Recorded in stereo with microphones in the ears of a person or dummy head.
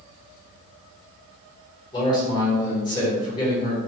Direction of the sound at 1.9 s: 25° left (ahead or behind).